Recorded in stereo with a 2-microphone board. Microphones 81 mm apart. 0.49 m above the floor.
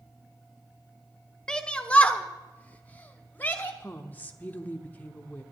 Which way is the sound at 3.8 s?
25° left (ahead or behind).